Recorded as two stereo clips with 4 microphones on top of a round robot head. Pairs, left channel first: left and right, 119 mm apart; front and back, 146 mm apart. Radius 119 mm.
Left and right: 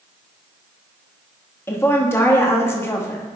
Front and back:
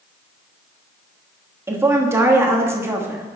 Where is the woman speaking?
130° left, 1.2 m.